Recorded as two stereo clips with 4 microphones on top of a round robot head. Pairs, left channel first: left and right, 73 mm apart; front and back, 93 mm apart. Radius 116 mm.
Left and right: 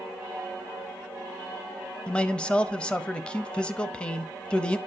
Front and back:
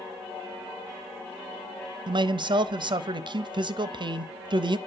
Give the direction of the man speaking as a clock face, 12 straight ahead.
7 o'clock.